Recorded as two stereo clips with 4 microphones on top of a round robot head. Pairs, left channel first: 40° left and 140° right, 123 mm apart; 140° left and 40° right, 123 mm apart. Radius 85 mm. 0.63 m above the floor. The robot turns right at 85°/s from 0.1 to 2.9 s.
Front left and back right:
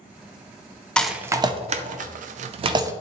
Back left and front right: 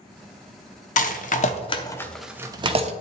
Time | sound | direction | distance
1.0 | a rattle | 125° left | 0.6 m